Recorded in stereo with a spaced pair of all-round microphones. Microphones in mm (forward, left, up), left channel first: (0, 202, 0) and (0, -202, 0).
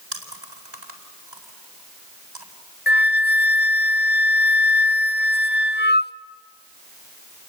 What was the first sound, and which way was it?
Chewing, 80° right.